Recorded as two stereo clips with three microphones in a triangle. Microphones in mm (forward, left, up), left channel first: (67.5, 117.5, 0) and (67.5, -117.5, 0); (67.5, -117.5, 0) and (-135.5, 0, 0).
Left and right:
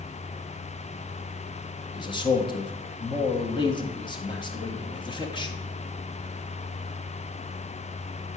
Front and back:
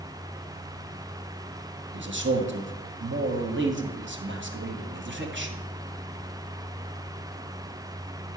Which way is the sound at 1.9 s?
155° left.